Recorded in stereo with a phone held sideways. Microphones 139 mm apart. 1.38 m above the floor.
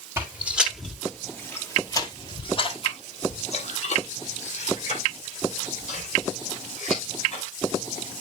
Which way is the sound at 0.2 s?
15° right (ahead or behind).